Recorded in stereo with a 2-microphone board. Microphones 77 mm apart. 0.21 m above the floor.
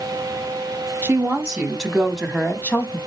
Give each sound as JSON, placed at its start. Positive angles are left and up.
{"t": 1.0, "sound": "a woman speaking", "side_deg": -20, "distance_m": 1.3}